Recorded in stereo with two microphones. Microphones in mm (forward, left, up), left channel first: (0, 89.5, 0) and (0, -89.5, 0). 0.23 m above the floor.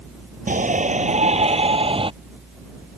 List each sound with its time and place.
0.5 s a shout: 45° right (ahead or behind); by 2.1 s 30° right (ahead or behind)